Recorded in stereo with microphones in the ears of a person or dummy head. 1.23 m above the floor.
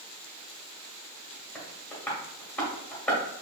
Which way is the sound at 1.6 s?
15° left (ahead or behind).